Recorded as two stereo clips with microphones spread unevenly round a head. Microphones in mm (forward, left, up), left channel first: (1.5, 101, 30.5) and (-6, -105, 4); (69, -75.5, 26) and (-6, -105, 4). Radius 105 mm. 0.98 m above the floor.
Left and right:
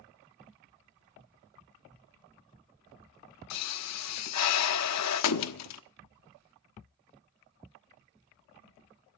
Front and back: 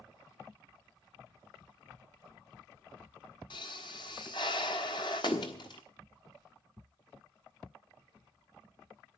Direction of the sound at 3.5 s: 85° left.